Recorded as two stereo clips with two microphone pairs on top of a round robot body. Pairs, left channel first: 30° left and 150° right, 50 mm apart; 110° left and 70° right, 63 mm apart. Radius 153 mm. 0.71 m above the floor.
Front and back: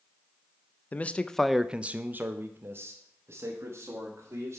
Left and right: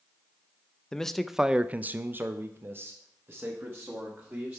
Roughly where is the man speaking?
Ahead left.